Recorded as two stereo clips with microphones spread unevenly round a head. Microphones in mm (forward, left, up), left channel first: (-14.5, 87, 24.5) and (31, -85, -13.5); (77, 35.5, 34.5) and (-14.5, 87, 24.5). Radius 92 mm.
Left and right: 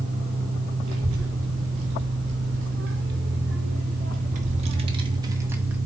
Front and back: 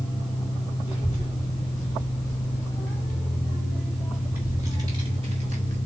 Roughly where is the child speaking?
Right.